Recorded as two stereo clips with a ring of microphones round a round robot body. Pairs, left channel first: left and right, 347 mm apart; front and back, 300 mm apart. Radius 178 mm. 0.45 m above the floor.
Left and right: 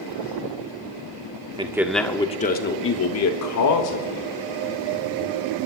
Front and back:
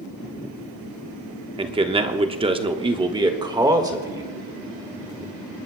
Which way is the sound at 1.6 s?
140° right.